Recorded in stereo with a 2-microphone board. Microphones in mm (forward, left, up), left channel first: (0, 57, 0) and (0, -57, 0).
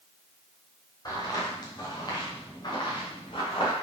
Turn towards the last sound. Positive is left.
turn(degrees=50)  # may be behind; listen again after turning